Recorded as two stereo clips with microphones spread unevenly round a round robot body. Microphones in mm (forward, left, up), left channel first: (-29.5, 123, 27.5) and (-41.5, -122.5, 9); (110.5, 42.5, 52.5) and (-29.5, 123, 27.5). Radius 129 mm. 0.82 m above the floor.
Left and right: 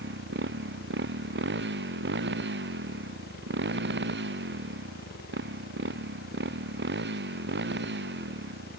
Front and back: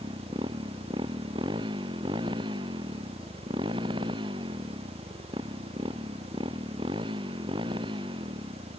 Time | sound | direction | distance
0.0 | a motorcycle | 140° right | ?